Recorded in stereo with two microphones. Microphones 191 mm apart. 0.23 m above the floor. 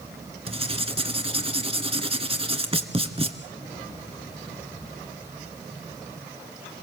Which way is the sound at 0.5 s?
30° right (ahead or behind).